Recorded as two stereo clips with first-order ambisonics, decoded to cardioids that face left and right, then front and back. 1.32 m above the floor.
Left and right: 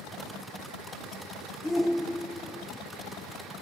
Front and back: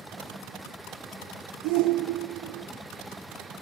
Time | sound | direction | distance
1.6 | a shout | 175° left | 0.6 m